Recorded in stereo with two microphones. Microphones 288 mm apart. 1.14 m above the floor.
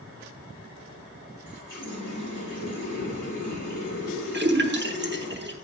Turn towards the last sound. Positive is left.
turn(degrees=-35)  # may be behind; listen again after turning